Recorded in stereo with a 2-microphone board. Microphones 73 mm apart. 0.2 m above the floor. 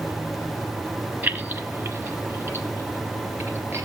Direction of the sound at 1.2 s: 25° right (ahead or behind).